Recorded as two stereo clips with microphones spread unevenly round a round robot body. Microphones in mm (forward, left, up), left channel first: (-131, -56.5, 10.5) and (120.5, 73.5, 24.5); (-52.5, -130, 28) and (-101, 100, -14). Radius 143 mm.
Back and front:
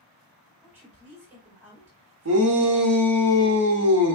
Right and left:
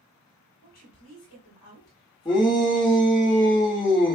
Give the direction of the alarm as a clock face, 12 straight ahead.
I don't hear an alarm.